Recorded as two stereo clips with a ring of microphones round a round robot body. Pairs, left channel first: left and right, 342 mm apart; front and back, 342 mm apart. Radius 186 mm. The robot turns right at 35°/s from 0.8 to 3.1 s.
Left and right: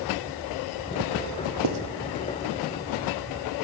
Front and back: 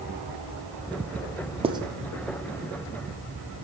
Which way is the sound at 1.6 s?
105° right.